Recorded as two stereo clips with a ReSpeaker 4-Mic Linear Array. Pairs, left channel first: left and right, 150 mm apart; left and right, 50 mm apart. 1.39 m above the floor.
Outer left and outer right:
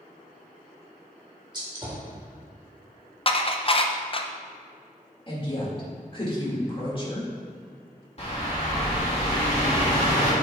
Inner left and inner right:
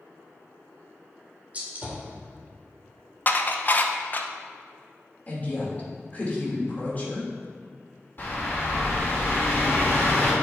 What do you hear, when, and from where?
1.5 s a gunshot: 30° right (ahead or behind), 1.9 m
3.3 s dishes clattering: 40° left (ahead or behind), 0.5 m
5.3 s a woman speaking: 35° left (ahead or behind), 2.5 m
8.2 s a bird: 45° left (ahead or behind), 2.5 m